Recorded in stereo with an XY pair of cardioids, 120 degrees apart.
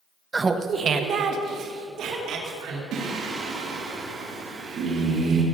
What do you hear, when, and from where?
0.3 s laughter: 20° right, 0.8 m; by 2.8 s 70° right, 2.5 m
2.9 s singing: 65° right, 2.5 m